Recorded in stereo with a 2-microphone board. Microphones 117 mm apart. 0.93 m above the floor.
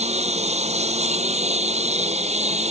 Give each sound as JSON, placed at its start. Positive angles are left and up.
{"t": 0.0, "sound": "a lawn mower", "side_deg": -65}